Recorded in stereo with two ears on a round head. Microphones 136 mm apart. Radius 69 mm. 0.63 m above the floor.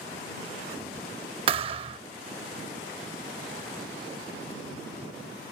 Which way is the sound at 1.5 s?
35° right (ahead or behind).